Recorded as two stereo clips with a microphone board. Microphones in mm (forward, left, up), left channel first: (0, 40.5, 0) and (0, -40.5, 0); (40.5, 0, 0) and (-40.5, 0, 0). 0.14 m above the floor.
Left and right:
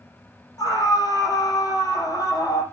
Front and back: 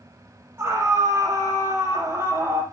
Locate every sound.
0.6 s a scream: 120° left, 5.5 m